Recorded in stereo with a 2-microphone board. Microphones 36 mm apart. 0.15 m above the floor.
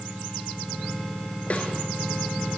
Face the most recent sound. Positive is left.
turn(degrees=40)  # may be behind; listen again after turning